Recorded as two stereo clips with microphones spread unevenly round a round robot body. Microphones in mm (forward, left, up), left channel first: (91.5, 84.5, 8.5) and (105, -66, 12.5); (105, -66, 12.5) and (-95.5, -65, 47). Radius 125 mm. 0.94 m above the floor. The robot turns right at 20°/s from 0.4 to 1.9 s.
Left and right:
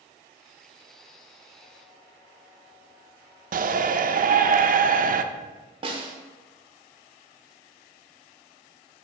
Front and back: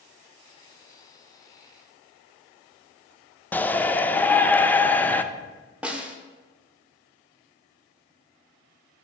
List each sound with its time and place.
3.5 s a shout: 75° right, 0.5 m
5.8 s a snare drum: 85° right, 0.9 m